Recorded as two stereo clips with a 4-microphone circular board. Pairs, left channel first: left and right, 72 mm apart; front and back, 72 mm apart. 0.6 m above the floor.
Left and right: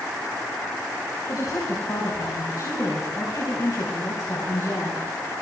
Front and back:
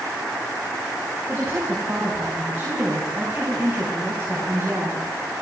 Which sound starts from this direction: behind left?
A woman speaking, at 1.3 s.